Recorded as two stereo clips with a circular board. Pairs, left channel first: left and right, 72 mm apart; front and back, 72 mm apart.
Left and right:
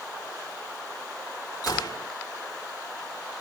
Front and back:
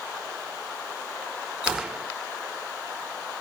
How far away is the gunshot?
About 1.5 m.